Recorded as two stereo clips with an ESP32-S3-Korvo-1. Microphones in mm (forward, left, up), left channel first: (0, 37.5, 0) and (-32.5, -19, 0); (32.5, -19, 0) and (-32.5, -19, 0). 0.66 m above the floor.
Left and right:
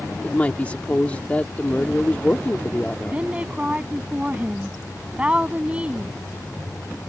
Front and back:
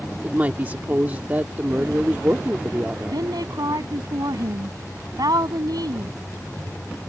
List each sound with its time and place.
0.2 s a woman speaking: 125° left
3.1 s a woman speaking: 170° left